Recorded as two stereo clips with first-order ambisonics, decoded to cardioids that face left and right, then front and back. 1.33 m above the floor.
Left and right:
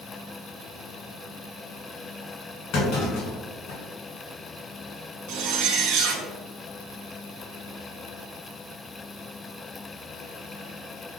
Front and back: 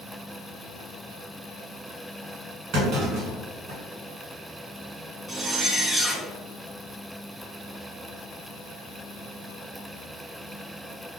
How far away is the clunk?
About 1.6 m.